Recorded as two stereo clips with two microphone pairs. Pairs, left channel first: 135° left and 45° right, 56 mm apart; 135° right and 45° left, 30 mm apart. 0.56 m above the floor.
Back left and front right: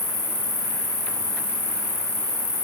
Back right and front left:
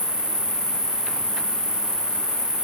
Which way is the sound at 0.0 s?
105° left.